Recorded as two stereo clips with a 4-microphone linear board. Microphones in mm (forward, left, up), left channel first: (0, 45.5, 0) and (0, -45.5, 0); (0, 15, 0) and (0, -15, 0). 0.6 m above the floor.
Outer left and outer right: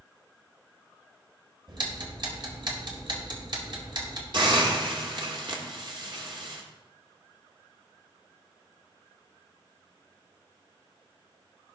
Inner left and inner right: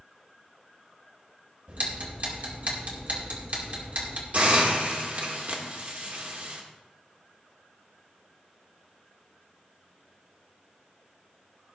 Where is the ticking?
55° right (ahead or behind), 2.0 m.